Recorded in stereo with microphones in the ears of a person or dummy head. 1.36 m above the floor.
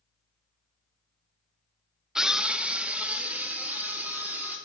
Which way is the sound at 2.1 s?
Centre (ahead or behind).